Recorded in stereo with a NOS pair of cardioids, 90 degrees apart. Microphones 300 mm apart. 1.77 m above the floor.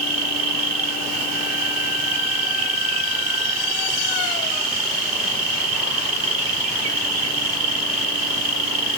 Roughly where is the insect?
Ahead right.